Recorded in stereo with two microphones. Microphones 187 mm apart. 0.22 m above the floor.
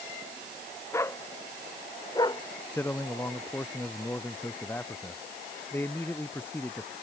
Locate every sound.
0.9 s a dog barking: 15° left (ahead or behind); by 2.4 s 25° left (ahead or behind)
2.7 s a man speaking: 10° left (ahead or behind)